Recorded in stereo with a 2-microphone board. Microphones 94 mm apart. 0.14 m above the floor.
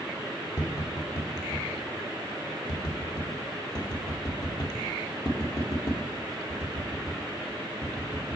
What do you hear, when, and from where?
0.6 s tapping: 45° left (ahead or behind), 2.5 m